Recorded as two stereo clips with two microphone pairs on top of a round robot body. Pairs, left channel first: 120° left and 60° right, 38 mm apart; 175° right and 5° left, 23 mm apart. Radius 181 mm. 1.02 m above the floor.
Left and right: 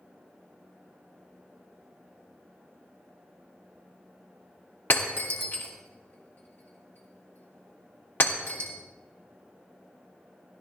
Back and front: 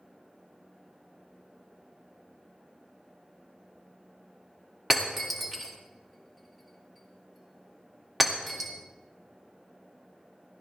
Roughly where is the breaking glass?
Left.